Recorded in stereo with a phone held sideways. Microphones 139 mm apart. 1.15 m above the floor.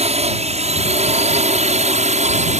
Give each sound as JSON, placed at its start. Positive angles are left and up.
{"t": 0.0, "sound": "a drone", "side_deg": -50}